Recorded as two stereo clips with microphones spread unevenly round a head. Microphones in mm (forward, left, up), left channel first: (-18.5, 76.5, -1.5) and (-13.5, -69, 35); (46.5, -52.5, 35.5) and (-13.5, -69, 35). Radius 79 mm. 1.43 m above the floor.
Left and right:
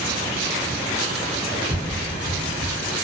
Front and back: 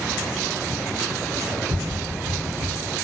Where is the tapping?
140° right, 0.8 m.